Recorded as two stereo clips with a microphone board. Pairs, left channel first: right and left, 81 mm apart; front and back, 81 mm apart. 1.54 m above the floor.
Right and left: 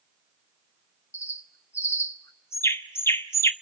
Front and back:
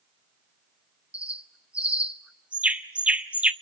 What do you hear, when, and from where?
1.1 s a bird: 120° right, 0.9 m